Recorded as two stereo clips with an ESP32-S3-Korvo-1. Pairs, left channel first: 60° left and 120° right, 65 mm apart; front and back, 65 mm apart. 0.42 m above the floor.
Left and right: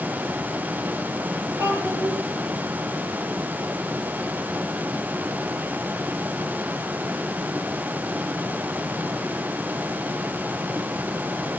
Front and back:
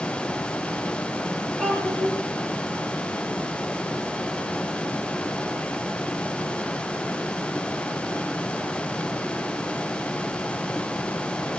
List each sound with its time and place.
1.6 s a child speaking: 75° right, 6.5 m